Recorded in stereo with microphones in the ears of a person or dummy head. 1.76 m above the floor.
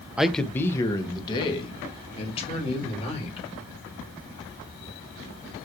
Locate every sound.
0.2 s a man speaking: 5° right (ahead or behind), 0.5 m; by 3.5 s 35° left (ahead or behind), 2.5 m